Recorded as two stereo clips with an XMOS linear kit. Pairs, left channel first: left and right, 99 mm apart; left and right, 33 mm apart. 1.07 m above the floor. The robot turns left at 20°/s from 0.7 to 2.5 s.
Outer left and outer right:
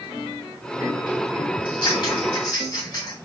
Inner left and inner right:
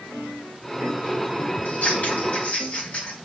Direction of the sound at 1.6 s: 65° left (ahead or behind).